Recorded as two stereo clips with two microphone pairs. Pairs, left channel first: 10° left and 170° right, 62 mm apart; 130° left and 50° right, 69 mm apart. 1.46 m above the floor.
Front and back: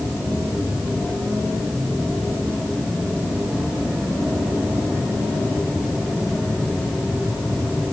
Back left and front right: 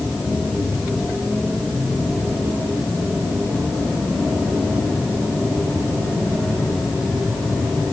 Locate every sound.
Only background noise.